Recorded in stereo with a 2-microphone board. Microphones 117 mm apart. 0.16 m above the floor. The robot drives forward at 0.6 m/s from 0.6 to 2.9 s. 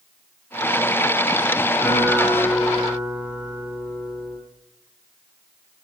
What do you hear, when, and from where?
1.8 s a guitar: 5° right (ahead or behind), 8 m